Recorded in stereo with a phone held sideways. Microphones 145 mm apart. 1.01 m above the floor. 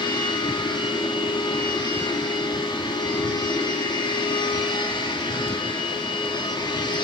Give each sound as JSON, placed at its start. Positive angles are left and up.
{"t": 0.0, "sound": "a machine running", "side_deg": 35, "distance_m": 1.5}